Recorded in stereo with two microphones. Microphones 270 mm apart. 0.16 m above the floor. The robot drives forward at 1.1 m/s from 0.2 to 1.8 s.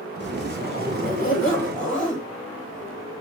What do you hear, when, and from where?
0.2 s a zipper: 40° left (ahead or behind), 2.5 m; by 2.3 s 25° left (ahead or behind), 4 m